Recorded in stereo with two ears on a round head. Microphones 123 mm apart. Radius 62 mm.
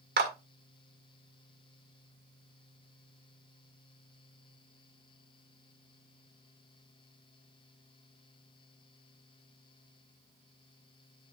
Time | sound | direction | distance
0.2 | a clap | 80° right | 1.9 m